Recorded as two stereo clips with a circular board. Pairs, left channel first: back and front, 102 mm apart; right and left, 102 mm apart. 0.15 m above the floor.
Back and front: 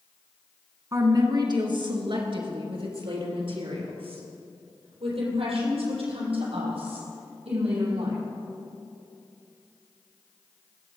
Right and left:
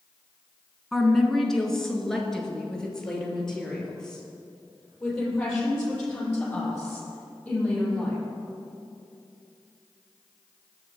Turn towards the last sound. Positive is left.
turn(degrees=-10)